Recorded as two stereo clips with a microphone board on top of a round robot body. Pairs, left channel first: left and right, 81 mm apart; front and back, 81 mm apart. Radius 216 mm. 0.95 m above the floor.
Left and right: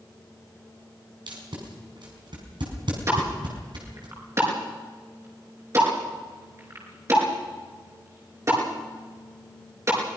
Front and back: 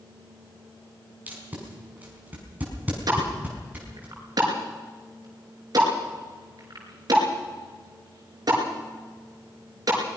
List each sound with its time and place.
1.3 s tape being pulled: 110° right, 5 m
3.1 s a pop: 140° right, 5.5 m